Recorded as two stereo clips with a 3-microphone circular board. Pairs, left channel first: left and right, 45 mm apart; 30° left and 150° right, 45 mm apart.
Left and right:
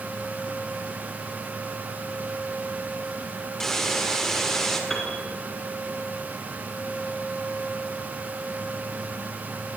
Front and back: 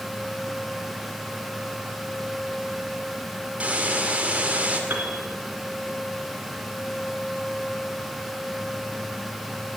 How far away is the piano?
About 2.5 m.